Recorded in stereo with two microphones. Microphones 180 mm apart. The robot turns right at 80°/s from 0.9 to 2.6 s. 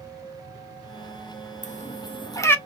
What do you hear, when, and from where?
1.6 s a cat meowing: 40° left (ahead or behind), 0.5 m; by 2.5 s 10° left (ahead or behind), 0.5 m